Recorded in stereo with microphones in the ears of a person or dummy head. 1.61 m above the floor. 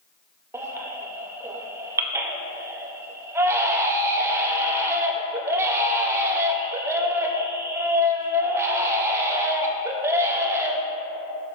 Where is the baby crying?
15° right (ahead or behind), 0.5 m.